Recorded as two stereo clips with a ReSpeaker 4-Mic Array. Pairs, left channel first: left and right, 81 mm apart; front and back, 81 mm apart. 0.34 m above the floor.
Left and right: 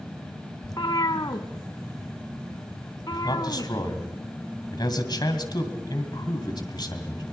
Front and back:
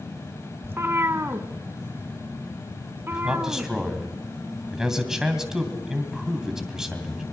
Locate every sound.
0.6 s a cat meowing: 120° left, 0.9 m
3.1 s a man speaking: 100° left, 2.5 m